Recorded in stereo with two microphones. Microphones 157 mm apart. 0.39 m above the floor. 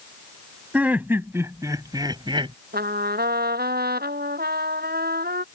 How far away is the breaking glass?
I don't hear breaking glass.